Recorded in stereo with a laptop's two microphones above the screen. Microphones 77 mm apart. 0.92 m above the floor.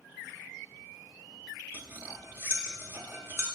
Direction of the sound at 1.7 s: 35° right (ahead or behind).